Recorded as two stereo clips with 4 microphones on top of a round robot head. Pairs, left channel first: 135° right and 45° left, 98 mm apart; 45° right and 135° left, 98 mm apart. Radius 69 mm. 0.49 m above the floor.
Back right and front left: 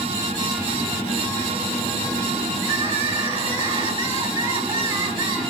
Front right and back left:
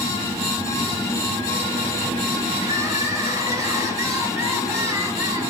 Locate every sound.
2.6 s crying: 80° left, 7 m